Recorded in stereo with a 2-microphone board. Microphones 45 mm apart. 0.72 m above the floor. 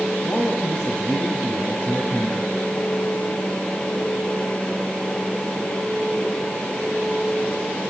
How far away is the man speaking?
About 4 m.